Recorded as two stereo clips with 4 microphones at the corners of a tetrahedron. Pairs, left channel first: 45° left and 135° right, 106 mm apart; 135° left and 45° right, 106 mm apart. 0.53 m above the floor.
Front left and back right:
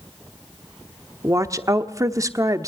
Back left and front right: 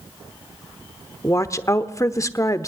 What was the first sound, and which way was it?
A woman speaking, straight behind.